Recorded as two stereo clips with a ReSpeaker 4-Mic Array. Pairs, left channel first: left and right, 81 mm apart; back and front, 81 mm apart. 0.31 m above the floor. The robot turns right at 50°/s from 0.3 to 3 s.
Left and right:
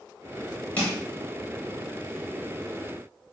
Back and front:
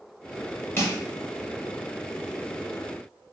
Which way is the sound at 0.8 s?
145° left.